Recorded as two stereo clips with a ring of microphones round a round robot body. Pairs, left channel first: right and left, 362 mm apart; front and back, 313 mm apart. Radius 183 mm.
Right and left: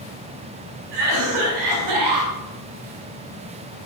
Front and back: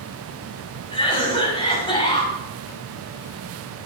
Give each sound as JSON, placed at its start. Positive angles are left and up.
{"t": 0.9, "sound": "a cough", "azimuth_deg": 75, "distance_m": 6.0}